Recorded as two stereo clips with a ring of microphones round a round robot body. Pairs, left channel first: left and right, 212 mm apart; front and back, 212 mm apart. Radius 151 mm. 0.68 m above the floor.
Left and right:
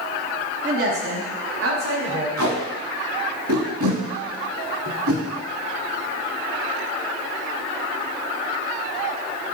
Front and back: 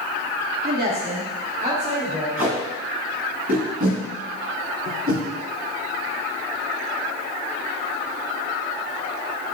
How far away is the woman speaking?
About 0.8 m.